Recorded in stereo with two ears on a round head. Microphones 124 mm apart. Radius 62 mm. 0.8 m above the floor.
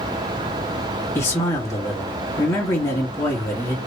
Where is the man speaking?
20° left (ahead or behind), 1.8 m.